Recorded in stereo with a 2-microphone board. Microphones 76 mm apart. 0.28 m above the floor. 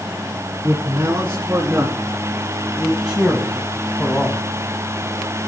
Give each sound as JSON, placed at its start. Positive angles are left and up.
{"t": 0.6, "sound": "a man speaking", "side_deg": -25, "distance_m": 3.5}